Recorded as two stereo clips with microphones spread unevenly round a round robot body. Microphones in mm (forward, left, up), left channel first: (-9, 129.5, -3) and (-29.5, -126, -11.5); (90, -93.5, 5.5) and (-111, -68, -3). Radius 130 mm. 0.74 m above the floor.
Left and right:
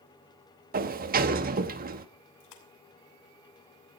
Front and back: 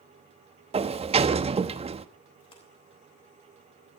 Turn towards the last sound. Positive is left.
turn(degrees=65)